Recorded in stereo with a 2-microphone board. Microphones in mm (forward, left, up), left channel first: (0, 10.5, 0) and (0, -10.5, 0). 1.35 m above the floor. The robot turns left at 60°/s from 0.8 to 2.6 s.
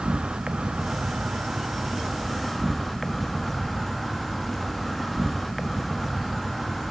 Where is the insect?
70° right, 1.0 m; by 6.9 s straight behind, 1.0 m.